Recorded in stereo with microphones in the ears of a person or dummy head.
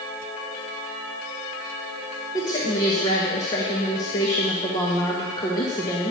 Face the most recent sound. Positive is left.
turn(degrees=20)  # may be behind; listen again after turning